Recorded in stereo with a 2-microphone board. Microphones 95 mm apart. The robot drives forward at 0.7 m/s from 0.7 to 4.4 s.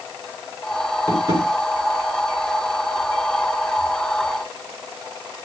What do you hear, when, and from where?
1.1 s tapping: 35° right (ahead or behind), 7.5 m; by 1.5 s 40° right (ahead or behind), 7 m